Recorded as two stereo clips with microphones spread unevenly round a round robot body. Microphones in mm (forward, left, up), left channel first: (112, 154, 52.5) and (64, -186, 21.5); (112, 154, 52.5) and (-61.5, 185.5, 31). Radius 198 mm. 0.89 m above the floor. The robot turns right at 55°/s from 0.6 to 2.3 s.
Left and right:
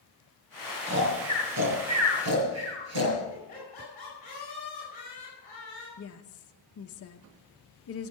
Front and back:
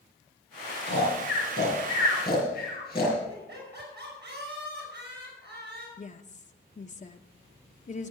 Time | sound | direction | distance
0.9 | snoring | 165° right | 7 m
3.3 | laughter | 155° left | 5 m
6.0 | a woman speaking | 35° left | 1.0 m